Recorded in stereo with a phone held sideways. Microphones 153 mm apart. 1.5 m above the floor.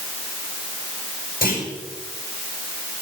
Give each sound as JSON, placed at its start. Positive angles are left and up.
{"t": 1.4, "sound": "a clunk", "side_deg": 75, "distance_m": 8.0}